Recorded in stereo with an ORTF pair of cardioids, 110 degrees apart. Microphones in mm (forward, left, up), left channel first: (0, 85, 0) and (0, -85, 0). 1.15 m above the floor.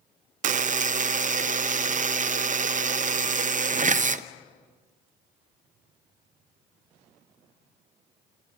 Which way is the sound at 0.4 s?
45° right.